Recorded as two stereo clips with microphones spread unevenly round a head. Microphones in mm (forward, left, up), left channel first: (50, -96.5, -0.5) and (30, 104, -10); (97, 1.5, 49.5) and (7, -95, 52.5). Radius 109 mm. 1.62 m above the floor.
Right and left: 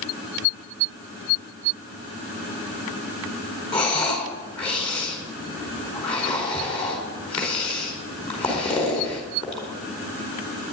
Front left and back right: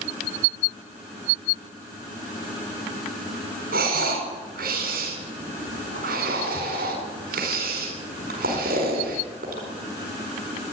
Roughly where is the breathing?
Behind.